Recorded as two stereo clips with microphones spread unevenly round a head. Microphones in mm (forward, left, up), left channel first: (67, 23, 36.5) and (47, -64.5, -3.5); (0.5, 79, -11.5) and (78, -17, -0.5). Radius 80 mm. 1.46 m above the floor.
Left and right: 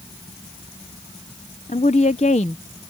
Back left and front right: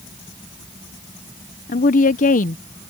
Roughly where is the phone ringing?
No phone ringing in this recording.